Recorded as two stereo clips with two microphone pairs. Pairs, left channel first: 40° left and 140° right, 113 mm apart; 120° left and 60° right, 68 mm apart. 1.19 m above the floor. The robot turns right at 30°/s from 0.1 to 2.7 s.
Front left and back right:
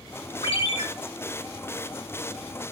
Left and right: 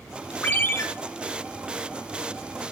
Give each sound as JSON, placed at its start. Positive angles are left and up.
{"t": 0.4, "sound": "a ringtone", "azimuth_deg": 55, "distance_m": 1.0}